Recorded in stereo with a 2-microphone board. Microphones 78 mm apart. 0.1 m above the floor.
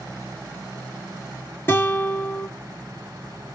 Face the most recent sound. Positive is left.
turn(degrees=30)  # may be behind; listen again after turning